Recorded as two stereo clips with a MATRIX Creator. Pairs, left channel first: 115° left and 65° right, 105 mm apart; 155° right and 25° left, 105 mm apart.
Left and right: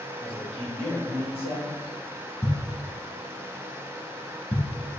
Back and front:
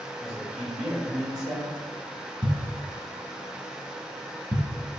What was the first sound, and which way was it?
A man speaking, 105° left.